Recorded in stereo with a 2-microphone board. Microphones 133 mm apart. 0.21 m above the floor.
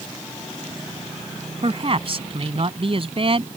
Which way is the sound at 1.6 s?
50° right (ahead or behind).